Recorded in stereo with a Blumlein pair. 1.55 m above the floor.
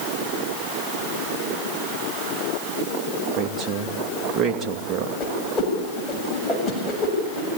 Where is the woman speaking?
20° right, 2.5 m.